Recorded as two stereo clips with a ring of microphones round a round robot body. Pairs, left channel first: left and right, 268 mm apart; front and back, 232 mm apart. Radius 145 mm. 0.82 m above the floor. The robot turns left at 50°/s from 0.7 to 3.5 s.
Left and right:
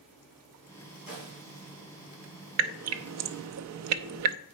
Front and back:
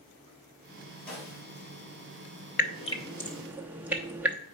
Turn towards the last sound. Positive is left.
turn(degrees=-95)